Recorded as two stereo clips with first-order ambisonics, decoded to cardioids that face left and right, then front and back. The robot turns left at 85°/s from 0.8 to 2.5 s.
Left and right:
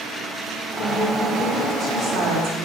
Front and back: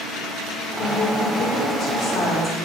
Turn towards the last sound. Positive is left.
turn(degrees=-85)